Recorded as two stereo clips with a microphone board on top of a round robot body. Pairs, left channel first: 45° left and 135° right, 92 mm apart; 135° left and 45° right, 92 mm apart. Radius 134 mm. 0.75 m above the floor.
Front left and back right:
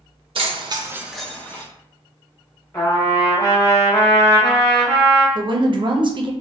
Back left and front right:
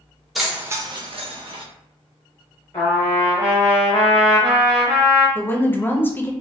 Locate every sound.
0.3 s keys jangling: 135° right, 0.9 m; by 1.6 s 20° right, 1.2 m
2.7 s a trumpet: 95° left, 0.5 m
5.3 s a woman speaking: 160° right, 0.6 m